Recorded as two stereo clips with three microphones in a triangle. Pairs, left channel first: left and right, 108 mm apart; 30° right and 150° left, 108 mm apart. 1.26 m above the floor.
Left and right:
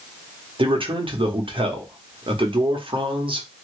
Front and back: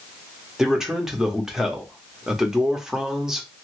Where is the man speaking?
125° right, 1.1 m.